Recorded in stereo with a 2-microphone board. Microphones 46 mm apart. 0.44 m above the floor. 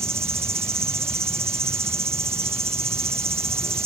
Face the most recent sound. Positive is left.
turn(degrees=-65)  # may be behind; listen again after turning